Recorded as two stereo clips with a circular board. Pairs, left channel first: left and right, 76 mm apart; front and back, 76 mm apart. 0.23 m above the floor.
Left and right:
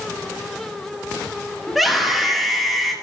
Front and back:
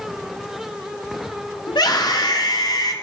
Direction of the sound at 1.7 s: Straight ahead.